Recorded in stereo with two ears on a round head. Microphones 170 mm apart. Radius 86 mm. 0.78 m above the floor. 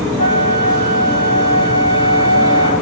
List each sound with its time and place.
0.2 s a flute: 30° left (ahead or behind), 5 m